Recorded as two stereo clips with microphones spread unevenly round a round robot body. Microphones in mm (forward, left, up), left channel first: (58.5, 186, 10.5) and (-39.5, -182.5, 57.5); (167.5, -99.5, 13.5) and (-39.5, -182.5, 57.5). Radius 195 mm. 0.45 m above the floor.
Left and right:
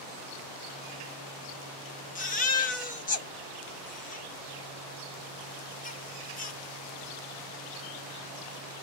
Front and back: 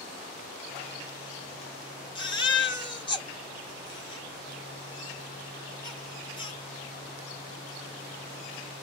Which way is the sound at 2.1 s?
40° left.